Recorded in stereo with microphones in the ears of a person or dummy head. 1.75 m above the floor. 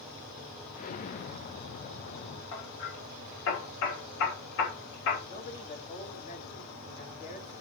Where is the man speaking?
40° left (ahead or behind), 2.5 m.